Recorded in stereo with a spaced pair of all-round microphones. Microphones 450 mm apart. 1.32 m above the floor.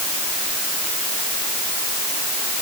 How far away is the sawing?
I don't hear sawing.